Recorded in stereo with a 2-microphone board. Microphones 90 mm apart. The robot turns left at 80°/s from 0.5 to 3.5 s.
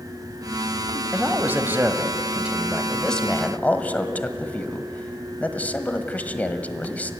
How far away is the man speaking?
About 1.1 m.